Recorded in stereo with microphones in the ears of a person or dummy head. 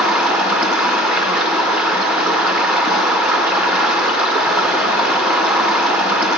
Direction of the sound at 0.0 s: 5° right (ahead or behind).